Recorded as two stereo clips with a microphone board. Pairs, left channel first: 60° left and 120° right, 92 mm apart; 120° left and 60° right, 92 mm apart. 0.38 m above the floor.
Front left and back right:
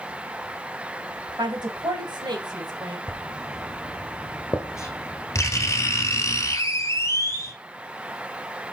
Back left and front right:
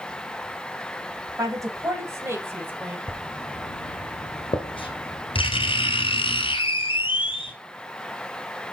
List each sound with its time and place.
1.4 s a woman speaking: 100° right, 2.5 m; by 3.0 s 125° right, 2 m
3.1 s writing: 115° left, 1.8 m